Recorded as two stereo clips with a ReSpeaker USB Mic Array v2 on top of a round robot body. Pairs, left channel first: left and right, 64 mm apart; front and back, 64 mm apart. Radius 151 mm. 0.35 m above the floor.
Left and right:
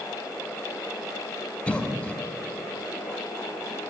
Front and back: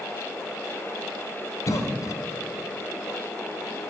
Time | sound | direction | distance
1.7 | a cough | 20° left | 2 m